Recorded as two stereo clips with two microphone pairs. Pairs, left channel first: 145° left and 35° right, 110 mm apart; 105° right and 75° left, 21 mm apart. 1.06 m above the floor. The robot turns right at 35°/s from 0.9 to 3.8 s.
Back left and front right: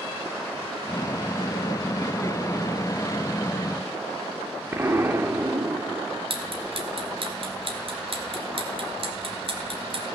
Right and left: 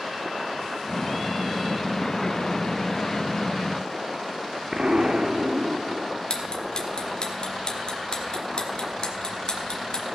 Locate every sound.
4.7 s an explosion: 35° left, 1.0 m
6.3 s ticking: 70° right, 1.7 m